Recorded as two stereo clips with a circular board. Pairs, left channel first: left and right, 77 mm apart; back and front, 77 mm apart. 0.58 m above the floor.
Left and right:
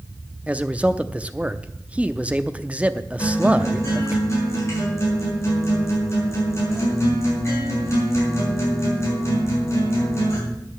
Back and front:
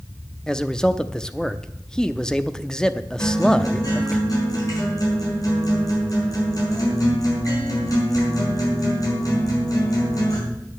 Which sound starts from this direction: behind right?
A man speaking, at 0.5 s.